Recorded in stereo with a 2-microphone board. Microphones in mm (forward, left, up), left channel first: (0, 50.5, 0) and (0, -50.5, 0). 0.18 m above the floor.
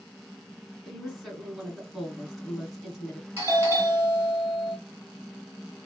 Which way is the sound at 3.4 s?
25° right (ahead or behind).